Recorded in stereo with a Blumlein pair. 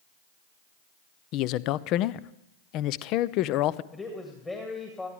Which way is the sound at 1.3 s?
40° left.